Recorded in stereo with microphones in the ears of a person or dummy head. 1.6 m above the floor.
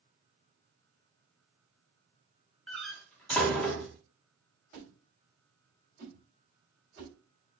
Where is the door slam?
5° left (ahead or behind), 0.7 m.